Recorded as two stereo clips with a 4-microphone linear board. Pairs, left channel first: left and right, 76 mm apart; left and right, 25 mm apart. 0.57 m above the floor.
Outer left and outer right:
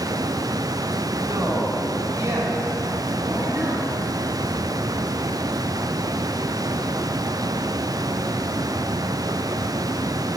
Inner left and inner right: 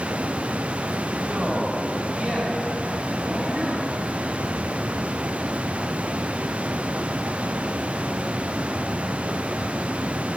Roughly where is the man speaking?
Right.